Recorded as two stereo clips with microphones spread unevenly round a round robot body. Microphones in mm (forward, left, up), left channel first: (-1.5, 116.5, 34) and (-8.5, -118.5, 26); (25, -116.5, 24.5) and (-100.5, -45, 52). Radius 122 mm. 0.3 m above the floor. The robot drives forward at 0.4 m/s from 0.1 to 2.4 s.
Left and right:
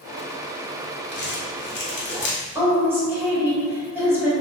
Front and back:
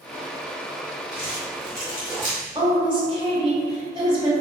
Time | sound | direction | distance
1.1 | crumpling | 55° left | 1.0 m
2.5 | a woman speaking | 165° right | 1.4 m